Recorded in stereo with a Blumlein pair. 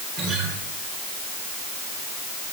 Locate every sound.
0.2 s a guitar: 35° right, 6.5 m